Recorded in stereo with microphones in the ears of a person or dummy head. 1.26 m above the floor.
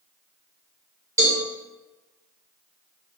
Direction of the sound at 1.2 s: 15° right (ahead or behind).